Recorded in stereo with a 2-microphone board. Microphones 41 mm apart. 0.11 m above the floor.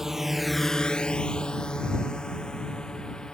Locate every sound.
0.0 s a drone: 10° right (ahead or behind); by 3.4 s 15° left (ahead or behind)